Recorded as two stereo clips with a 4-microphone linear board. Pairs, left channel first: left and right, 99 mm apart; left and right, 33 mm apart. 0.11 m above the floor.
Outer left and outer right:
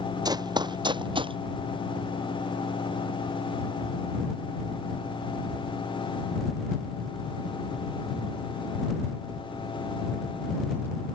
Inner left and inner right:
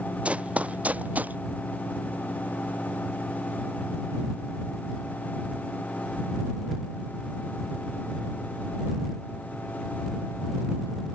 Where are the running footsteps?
40° right (ahead or behind); by 1.4 s 55° right (ahead or behind).